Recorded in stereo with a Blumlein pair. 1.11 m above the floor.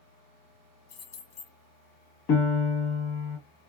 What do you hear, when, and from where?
0.9 s keys jangling: 50° left, 1.3 m
2.3 s a piano: 40° left, 1.1 m